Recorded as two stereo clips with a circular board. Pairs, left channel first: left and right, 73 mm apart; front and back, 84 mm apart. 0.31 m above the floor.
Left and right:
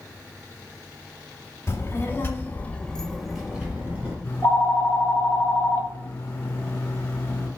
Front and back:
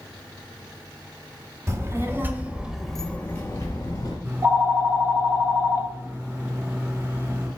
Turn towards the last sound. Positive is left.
turn(degrees=130)